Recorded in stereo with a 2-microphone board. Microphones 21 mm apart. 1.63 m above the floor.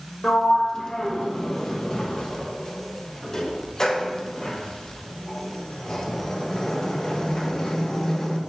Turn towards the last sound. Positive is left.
turn(degrees=35)  # may be behind; listen again after turning